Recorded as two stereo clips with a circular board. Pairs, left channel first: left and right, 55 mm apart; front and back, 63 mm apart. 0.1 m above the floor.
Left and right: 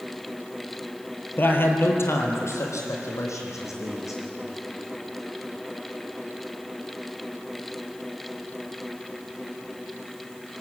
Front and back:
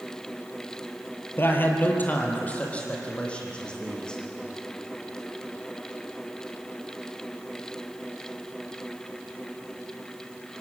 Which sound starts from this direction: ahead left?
A man speaking, at 1.4 s.